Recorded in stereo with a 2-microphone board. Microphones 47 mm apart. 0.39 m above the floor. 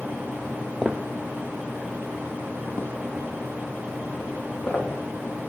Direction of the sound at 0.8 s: 10° left (ahead or behind).